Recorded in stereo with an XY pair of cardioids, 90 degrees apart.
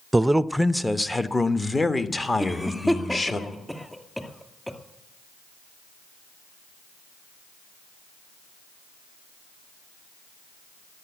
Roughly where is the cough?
Ahead.